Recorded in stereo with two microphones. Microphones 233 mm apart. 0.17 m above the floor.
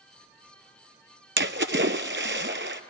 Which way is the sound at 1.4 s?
55° right (ahead or behind).